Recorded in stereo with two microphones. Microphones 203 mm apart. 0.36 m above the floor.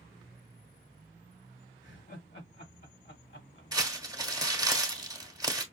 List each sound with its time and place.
1.8 s laughter: 60° left (ahead or behind), 2 m
3.7 s crumpling: 20° right (ahead or behind), 1.3 m